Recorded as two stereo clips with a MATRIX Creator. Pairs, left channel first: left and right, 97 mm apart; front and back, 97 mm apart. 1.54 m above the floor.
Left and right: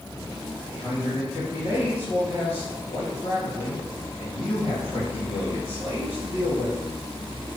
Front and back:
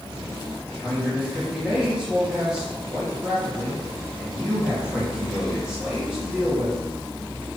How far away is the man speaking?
About 3 m.